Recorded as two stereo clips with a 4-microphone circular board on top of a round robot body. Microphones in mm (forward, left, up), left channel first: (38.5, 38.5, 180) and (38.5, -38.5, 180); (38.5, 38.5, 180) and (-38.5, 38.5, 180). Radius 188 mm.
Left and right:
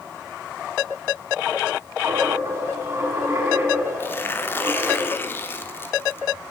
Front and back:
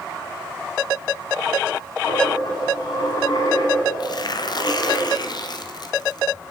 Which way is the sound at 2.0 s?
35° right.